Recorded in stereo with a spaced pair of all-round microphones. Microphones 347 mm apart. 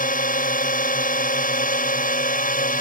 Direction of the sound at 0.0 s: 25° left (ahead or behind).